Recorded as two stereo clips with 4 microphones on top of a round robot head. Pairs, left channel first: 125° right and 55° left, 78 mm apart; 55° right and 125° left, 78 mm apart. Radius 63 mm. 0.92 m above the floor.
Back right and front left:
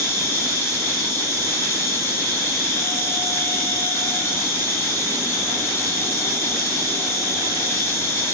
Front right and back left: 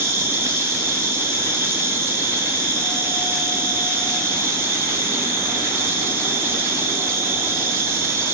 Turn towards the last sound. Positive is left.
turn(degrees=180)